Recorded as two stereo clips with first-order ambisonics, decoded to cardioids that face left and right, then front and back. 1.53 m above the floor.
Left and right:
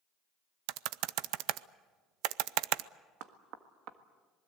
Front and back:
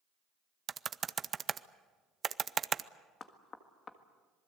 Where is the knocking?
65° right, 1.6 m.